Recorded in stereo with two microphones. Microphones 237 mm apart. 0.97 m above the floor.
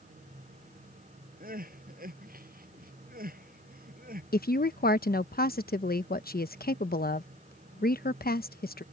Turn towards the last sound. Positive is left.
turn(degrees=40)  # may be behind; listen again after turning